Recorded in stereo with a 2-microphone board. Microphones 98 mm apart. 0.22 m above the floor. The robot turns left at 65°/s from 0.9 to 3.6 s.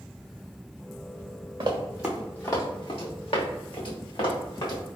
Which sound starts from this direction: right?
Running footsteps, at 1.6 s.